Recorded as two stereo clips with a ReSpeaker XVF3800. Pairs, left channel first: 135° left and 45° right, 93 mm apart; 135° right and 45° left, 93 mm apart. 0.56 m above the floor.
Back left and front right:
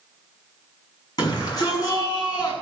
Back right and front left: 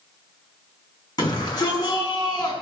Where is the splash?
No splash in this recording.